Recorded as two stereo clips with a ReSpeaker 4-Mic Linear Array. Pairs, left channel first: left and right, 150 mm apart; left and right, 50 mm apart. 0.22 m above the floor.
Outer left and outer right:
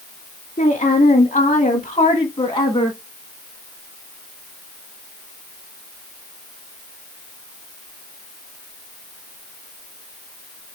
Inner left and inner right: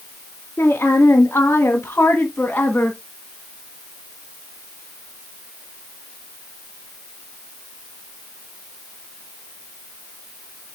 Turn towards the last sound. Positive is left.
turn(degrees=25)  # may be behind; listen again after turning